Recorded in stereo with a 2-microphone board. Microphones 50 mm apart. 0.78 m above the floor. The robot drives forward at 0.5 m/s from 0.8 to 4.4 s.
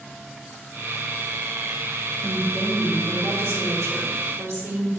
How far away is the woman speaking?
About 2.5 m.